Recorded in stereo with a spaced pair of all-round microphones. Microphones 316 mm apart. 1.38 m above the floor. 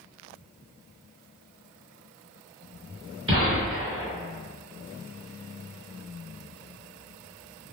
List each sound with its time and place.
3.3 s a gunshot: 40° right (ahead or behind), 1.1 m